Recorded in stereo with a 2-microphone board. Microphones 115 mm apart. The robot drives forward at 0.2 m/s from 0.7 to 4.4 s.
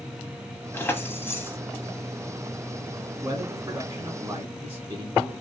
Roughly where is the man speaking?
Right.